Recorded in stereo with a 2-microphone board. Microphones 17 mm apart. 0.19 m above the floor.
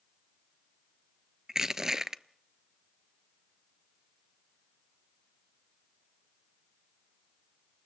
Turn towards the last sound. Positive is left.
turn(degrees=-25)  # may be behind; listen again after turning